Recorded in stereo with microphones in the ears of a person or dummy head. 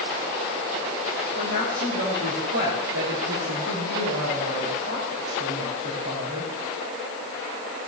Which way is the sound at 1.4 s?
60° right (ahead or behind).